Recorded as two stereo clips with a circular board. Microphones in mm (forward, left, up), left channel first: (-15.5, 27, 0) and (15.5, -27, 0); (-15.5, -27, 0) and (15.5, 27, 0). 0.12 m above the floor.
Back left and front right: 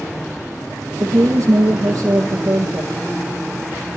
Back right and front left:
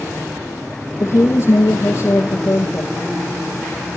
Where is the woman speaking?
80° right, 3.5 m.